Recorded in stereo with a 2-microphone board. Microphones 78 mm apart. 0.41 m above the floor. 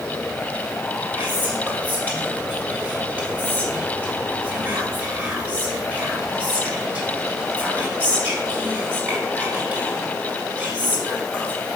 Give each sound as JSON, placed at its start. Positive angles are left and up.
{"t": 1.1, "sound": "whispering", "side_deg": -20, "distance_m": 2.0}